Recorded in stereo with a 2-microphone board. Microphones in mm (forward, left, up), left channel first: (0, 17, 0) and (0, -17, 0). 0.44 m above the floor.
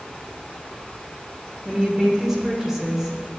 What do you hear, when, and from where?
1.6 s a woman speaking: 15° right (ahead or behind), 1.6 m